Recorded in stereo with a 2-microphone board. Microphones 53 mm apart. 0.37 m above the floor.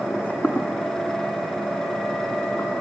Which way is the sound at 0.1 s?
20° left (ahead or behind).